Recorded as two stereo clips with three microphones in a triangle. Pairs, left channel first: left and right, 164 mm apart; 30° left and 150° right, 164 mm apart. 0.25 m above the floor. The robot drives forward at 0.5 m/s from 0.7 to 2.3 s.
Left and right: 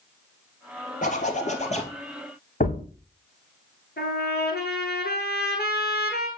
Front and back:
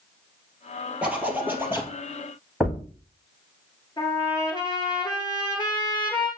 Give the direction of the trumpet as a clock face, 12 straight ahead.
9 o'clock.